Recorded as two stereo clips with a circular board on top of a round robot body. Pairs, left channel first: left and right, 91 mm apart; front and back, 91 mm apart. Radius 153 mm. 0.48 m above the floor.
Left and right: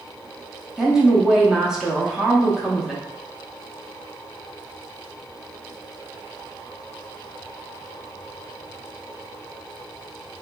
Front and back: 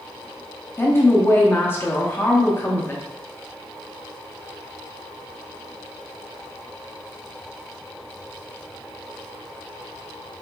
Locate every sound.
0.8 s a woman speaking: 15° right, 0.7 m